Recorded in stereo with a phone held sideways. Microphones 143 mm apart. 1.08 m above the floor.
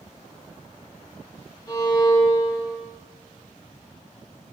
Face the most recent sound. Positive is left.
turn(degrees=25)  # may be behind; listen again after turning